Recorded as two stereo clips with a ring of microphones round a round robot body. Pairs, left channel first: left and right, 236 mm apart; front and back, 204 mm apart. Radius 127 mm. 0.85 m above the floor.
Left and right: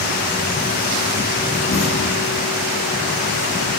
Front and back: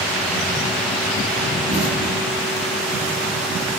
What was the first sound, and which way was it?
An explosion, 35° left.